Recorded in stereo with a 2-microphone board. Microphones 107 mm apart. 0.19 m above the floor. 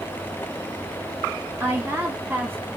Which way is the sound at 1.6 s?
20° right (ahead or behind).